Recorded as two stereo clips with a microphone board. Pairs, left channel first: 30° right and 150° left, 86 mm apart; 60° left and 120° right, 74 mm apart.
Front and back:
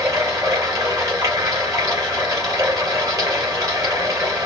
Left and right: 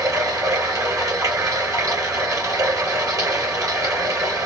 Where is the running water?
160° right, 3 m.